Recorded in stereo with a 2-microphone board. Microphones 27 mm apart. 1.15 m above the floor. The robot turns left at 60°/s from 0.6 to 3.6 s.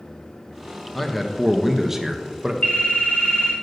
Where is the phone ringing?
105° left, 2.5 m; by 3.5 s 50° left, 2.5 m.